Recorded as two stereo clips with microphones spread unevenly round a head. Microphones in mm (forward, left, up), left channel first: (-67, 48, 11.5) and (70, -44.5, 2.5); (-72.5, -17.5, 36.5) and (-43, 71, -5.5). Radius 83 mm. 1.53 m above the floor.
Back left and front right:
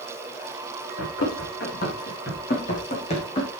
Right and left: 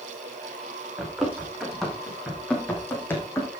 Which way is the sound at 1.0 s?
165° left.